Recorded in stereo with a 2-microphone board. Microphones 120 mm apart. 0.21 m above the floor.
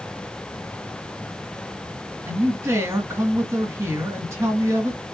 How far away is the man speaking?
About 2 m.